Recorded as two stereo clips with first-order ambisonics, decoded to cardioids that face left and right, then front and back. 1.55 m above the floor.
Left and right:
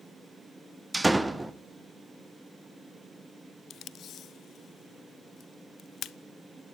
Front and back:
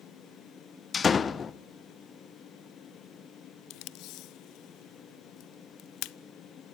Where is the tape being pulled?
35° left, 0.6 m.